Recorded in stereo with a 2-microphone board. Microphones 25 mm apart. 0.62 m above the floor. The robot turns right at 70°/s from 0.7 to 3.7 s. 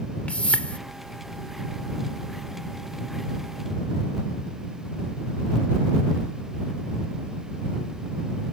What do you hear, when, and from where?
0.3 s a whoosh: 65° left (ahead or behind); by 0.8 s 60° left (ahead or behind)